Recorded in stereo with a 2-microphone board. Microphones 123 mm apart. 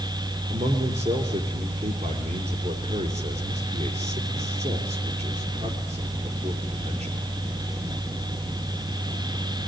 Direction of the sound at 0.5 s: 65° right (ahead or behind).